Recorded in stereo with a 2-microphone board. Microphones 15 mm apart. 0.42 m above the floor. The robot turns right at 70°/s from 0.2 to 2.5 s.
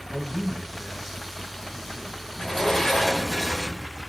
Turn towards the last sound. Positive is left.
turn(degrees=30)  # may be behind; listen again after turning